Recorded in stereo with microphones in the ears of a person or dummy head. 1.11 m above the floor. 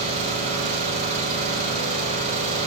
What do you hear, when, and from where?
0.0 s an engine running: 45° right (ahead or behind), 4.5 m